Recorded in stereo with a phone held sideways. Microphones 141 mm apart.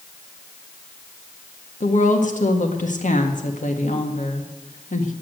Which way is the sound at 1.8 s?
65° left (ahead or behind).